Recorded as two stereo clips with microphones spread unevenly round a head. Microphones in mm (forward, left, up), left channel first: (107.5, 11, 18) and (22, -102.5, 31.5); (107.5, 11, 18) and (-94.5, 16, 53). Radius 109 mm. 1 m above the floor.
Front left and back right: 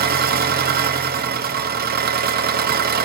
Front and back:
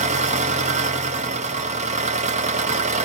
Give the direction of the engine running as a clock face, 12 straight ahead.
4 o'clock.